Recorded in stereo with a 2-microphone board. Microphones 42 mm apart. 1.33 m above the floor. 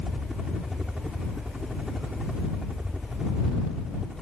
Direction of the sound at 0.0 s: 20° right (ahead or behind).